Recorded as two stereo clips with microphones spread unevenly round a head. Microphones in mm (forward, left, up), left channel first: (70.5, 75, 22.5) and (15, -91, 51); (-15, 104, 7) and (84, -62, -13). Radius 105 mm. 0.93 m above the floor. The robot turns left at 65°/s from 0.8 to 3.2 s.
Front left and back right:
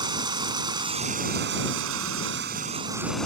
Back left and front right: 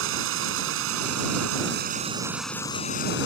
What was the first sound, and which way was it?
Running water, 45° right.